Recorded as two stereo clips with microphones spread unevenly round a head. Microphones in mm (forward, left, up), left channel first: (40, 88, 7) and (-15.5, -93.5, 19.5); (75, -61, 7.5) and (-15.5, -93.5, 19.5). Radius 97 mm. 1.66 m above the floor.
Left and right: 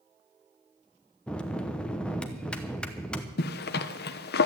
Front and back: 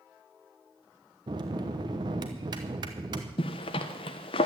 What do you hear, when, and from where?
1.3 s a bell: 160° left, 0.8 m
3.4 s a zipper: 55° left, 0.8 m